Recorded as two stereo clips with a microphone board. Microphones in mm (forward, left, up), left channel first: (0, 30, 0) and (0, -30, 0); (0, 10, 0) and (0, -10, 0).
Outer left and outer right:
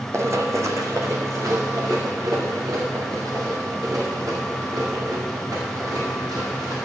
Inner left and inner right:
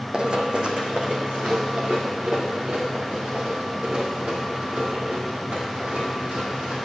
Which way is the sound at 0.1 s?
50° right (ahead or behind).